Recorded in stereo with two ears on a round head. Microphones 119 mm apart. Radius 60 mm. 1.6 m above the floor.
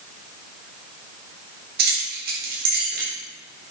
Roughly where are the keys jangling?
Right.